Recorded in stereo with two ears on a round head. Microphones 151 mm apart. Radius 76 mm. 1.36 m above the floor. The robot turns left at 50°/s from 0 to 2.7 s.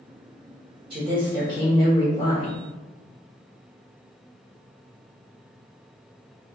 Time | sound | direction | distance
0.9 | a woman speaking | 145° right | 1.7 m